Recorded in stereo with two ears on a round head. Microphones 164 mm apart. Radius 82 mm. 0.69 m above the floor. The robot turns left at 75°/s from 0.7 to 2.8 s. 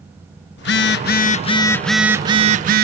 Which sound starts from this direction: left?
A phone buzzing, at 0.6 s.